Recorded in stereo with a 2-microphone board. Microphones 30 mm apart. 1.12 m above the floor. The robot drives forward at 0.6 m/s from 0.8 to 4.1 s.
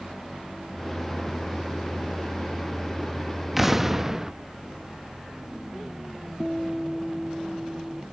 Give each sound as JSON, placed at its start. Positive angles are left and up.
{"t": 3.6, "sound": "an explosion", "side_deg": -10}
{"t": 6.4, "sound": "a guitar", "side_deg": 10}